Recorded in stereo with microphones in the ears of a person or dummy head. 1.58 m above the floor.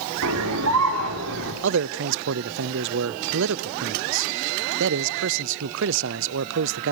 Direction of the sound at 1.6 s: 65° right (ahead or behind).